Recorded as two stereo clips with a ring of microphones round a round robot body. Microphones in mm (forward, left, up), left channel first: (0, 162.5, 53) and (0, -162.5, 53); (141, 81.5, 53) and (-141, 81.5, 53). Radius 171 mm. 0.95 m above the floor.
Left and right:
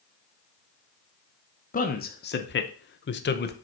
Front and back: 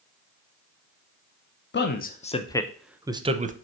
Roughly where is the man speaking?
Ahead left.